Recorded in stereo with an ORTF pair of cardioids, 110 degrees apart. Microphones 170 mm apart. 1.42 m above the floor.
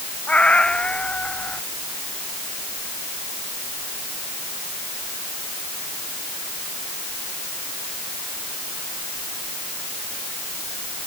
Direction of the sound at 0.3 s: 5° left.